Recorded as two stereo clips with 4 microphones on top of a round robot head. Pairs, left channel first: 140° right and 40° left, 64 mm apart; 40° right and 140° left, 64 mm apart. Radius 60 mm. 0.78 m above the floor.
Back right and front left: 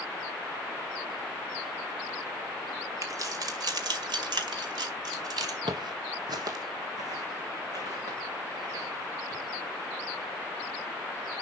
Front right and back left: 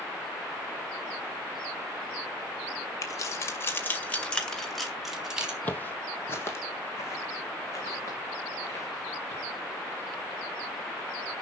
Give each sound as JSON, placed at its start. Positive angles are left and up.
{"t": 3.0, "sound": "keys jangling", "azimuth_deg": 0, "distance_m": 2.0}
{"t": 5.6, "sound": "footsteps", "azimuth_deg": 30, "distance_m": 1.3}